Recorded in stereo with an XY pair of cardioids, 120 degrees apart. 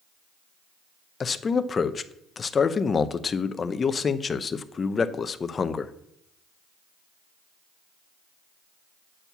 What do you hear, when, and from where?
1.2 s a man speaking: 30° left, 0.6 m